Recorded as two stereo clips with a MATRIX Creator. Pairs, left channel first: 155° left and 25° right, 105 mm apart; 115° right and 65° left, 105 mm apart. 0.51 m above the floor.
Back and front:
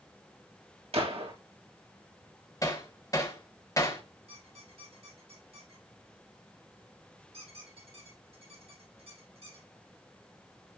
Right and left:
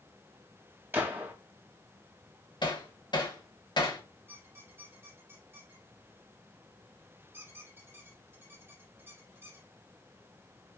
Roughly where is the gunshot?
Ahead.